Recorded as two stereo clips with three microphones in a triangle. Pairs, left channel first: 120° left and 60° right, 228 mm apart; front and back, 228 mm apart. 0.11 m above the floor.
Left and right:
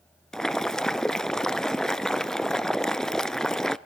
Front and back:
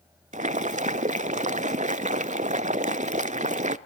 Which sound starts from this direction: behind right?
Boiling, at 0.3 s.